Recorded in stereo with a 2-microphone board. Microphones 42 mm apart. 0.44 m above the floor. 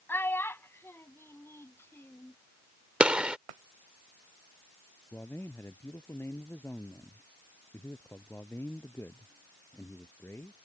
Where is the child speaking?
55° left (ahead or behind); by 2.4 s 70° left (ahead or behind).